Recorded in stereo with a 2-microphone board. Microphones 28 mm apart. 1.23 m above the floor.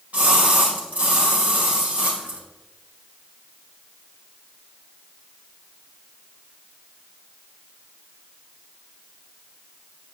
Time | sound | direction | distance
0.1 | a splash | 60° right (ahead or behind) | 2.5 m